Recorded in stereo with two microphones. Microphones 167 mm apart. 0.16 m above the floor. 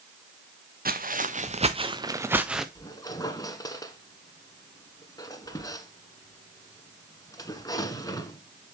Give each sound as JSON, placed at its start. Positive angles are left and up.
{"t": 0.8, "sound": "footsteps", "side_deg": -65, "distance_m": 1.4}
{"t": 2.8, "sound": "a squeak", "side_deg": 20, "distance_m": 1.2}